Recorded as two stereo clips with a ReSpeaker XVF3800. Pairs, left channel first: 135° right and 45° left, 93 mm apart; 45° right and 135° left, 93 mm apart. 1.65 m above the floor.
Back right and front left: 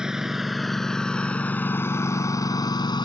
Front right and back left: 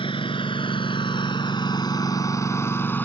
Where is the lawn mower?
35° right; by 3.0 s 110° right.